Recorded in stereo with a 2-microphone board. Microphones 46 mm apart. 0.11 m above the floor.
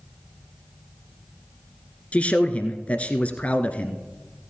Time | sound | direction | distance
2.1 | a man speaking | 30° left (ahead or behind) | 1.3 m